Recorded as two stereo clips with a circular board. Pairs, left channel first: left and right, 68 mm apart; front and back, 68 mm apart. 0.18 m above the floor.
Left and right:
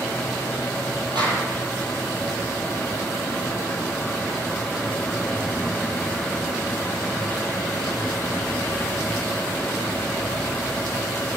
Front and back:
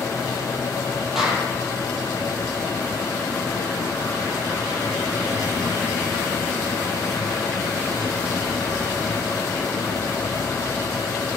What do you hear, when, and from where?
1.1 s a clap: 100° right, 5 m